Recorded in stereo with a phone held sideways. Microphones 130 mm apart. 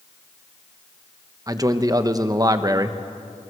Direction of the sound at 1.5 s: 25° right (ahead or behind).